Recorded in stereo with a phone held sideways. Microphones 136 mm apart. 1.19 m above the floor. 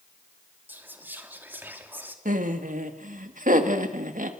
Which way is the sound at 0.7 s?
15° right (ahead or behind).